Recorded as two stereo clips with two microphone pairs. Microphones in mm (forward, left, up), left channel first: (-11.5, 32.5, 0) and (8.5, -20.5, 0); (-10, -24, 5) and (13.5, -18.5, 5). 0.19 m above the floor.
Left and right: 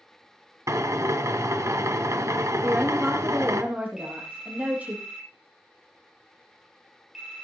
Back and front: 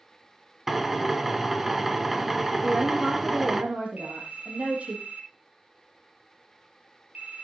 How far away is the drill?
About 1.4 m.